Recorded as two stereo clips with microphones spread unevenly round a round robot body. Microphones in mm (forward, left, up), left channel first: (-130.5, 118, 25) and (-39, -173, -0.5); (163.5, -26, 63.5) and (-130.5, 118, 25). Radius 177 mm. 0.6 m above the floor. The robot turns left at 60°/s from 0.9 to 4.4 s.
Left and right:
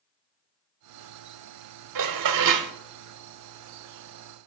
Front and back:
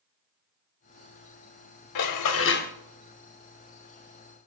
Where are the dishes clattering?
50° right, 1.3 m; by 2.7 s 100° right, 1.3 m.